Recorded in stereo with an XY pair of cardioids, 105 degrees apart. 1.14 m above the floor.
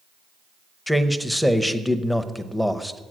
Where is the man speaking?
Straight ahead, 0.7 m.